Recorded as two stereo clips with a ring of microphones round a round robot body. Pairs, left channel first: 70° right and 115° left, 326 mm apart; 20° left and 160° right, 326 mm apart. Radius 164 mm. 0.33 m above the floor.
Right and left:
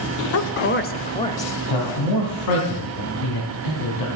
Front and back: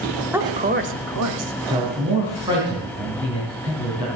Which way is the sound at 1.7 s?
80° right.